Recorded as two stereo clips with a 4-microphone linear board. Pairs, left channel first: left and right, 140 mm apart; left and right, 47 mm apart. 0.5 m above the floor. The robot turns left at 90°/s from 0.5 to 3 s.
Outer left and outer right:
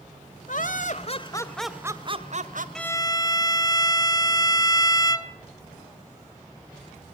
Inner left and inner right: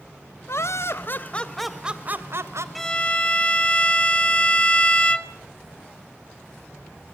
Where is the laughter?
105° left, 2.0 m; by 2.6 s 90° right, 2.0 m.